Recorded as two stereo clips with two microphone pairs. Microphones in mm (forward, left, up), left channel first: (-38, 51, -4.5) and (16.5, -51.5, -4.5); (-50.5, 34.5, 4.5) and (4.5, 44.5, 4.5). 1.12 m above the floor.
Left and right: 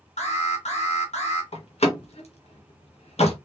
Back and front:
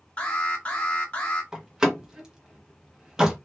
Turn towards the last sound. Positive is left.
turn(degrees=90)